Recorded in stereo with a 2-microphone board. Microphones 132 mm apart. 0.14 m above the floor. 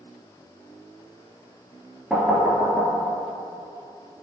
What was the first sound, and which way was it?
Knocking, 5° right (ahead or behind).